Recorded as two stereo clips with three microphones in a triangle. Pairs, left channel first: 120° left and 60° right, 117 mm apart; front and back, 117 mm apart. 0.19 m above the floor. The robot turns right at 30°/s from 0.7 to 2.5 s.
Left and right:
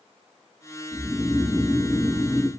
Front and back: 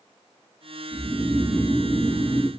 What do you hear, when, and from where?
0.9 s snoring: 175° left, 1.2 m; by 2.5 s 135° right, 1.2 m